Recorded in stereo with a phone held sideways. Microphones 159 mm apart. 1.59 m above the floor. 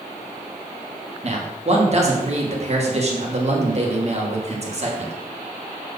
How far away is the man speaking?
About 1.4 m.